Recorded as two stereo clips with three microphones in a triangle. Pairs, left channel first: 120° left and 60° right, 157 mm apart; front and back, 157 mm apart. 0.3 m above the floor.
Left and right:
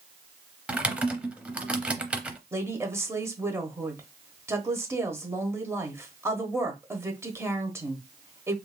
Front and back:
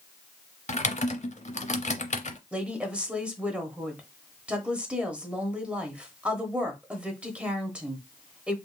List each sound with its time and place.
0.7 s typing on a keyboard: 20° left, 0.6 m
2.5 s a woman speaking: 110° right, 0.9 m